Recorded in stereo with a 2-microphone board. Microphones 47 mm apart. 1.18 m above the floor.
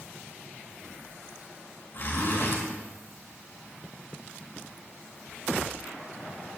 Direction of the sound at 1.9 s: 50° left (ahead or behind).